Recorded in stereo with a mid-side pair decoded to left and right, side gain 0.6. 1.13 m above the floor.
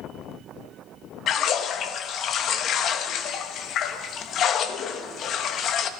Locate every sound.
1.3 s a splash: 50° left, 1.1 m